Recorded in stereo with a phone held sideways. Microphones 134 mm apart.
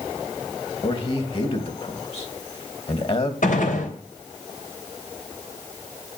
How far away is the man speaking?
About 2.5 m.